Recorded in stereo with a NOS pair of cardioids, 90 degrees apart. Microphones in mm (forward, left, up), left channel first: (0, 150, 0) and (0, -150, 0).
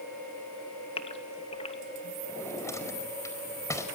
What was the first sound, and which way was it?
A gasp, 20° left.